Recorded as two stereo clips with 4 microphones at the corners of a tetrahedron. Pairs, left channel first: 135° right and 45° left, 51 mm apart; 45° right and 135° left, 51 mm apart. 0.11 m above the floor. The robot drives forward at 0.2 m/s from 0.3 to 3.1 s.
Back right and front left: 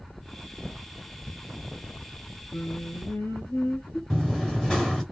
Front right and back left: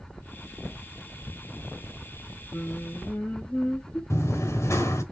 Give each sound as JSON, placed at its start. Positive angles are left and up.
{"t": 2.5, "sound": "singing", "azimuth_deg": -100, "distance_m": 1.3}
{"t": 4.1, "sound": "running footsteps", "azimuth_deg": -55, "distance_m": 1.6}